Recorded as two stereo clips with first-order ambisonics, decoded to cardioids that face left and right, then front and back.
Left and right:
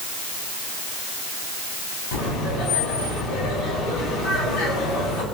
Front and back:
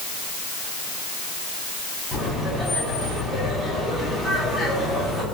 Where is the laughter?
70° left, 7.5 m.